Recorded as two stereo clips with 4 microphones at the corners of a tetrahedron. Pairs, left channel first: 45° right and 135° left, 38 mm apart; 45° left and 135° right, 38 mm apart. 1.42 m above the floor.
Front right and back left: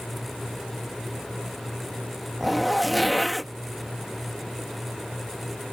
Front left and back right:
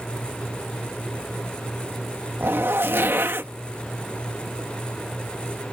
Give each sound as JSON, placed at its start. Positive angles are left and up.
{"t": 2.4, "sound": "a zipper", "azimuth_deg": -140}